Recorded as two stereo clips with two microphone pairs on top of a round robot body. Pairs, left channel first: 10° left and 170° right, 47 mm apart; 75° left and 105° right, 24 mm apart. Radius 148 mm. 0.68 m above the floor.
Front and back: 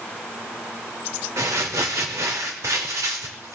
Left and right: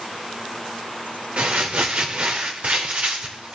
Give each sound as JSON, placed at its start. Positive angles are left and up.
{"t": 1.4, "sound": "crumpling", "azimuth_deg": -145, "distance_m": 0.5}